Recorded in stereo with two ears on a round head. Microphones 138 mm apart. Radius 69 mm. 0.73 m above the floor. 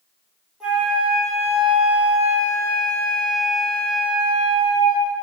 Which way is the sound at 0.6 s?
5° right (ahead or behind).